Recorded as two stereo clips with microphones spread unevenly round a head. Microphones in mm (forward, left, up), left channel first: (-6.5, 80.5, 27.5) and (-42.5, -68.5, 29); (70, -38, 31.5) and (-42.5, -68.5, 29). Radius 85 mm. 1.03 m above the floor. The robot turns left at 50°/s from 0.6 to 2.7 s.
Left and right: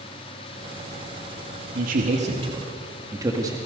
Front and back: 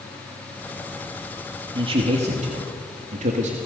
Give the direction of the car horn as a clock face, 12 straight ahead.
No car horn in this recording.